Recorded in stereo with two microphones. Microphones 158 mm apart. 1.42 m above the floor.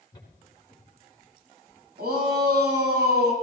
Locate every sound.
0.1 s footsteps: 30° left (ahead or behind), 4.5 m; by 1.8 s 10° left (ahead or behind), 5 m
2.0 s a shout: 80° right, 9 m